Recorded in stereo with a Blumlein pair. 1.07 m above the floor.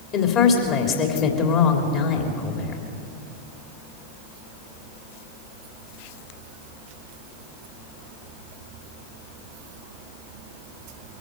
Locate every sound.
0.1 s a woman speaking: 35° left, 3 m